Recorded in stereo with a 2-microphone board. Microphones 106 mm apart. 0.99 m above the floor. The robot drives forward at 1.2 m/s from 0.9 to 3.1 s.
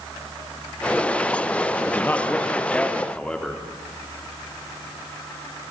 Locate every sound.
1.9 s a man speaking: 20° left (ahead or behind), 1.5 m; by 3.7 s 10° left (ahead or behind), 3 m